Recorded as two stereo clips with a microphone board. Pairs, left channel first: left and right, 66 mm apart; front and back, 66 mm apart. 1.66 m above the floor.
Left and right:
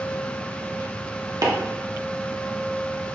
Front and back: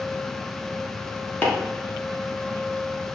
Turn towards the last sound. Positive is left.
turn(degrees=-65)